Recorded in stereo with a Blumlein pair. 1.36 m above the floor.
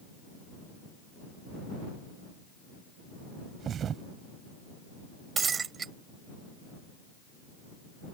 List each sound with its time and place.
3.6 s a thud: 25° right
5.4 s breaking glass: 20° right